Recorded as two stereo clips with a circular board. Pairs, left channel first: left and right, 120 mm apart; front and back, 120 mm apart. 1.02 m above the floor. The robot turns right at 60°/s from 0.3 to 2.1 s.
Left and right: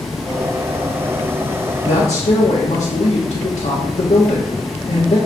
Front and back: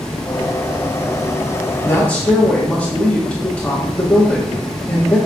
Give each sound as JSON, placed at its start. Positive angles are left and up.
{"t": 1.8, "sound": "a woman speaking", "azimuth_deg": 65, "distance_m": 1.4}